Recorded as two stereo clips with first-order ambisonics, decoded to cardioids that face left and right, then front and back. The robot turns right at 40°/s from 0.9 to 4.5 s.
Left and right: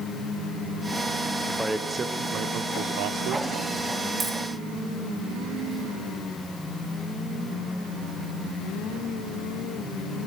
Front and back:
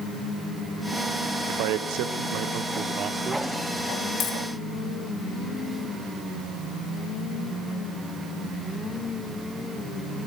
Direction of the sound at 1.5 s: 175° left.